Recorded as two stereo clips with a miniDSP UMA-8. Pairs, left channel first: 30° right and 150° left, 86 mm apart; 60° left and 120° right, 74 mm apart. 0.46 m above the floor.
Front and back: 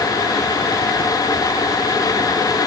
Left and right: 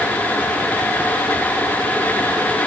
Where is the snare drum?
No snare drum in this recording.